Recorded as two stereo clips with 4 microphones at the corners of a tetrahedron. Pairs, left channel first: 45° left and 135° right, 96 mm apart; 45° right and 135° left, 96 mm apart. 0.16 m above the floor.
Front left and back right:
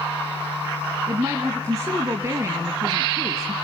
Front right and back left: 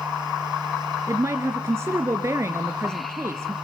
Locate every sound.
1.1 s a woman speaking: straight behind, 1.6 m